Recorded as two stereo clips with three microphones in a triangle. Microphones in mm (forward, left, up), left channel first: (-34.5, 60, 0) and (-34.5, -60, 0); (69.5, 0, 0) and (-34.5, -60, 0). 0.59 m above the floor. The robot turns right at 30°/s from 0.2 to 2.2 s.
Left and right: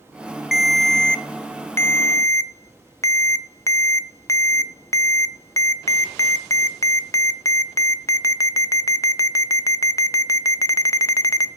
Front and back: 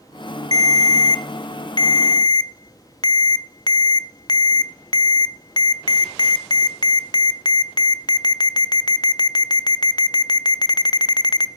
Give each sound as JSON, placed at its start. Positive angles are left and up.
{"t": 0.5, "sound": "a ringtone", "azimuth_deg": -5, "distance_m": 0.5}